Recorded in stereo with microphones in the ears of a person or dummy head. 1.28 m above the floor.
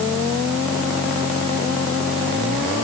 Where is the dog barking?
No dog barking in this recording.